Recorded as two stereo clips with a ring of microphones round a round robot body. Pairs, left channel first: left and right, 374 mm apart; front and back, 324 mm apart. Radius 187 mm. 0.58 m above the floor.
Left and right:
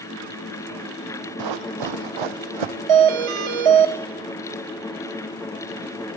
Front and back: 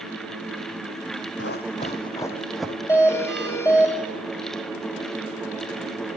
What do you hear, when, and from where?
1.4 s running footsteps: 60° right, 1.6 m; by 2.8 s 95° right, 1.9 m
2.9 s a doorbell: 85° right, 3.5 m